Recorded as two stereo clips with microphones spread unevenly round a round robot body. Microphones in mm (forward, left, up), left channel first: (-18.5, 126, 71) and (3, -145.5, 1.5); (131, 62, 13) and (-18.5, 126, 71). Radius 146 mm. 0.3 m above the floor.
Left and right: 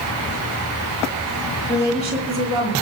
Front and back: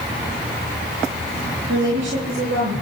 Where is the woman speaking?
170° right, 9 m; by 2.7 s 175° right, 9.5 m.